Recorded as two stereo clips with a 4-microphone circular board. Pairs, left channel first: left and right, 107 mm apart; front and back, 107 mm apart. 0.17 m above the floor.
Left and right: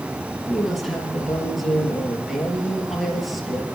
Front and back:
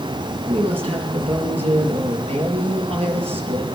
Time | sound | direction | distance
0.5 | a woman speaking | straight behind | 4 m